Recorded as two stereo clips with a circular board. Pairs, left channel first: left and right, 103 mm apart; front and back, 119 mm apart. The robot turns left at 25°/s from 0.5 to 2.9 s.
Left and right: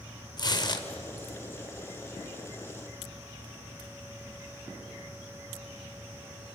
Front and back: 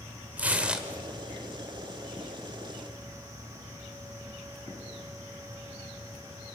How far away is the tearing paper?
About 1.8 m.